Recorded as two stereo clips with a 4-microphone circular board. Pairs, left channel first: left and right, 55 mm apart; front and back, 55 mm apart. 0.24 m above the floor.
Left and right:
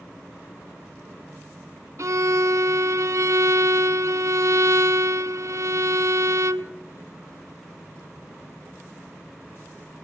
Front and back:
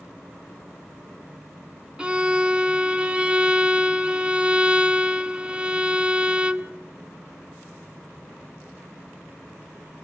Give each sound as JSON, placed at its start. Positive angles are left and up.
{"t": 2.0, "sound": "a violin", "azimuth_deg": -110, "distance_m": 0.6}